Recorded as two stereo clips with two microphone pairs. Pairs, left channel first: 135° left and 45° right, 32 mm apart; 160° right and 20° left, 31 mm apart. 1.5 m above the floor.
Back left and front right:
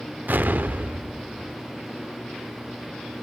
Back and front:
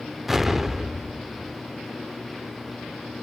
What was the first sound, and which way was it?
An explosion, 60° right.